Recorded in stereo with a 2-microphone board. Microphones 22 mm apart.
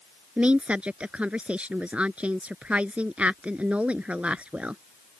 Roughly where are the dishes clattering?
No dishes clattering in this recording.